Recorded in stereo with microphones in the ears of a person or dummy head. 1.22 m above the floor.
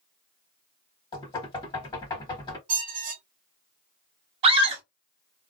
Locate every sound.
1.1 s knocking: 25° left (ahead or behind), 1.4 m
2.7 s a squeak: 40° right (ahead or behind), 1.2 m
4.4 s a scream: 30° right (ahead or behind), 1.1 m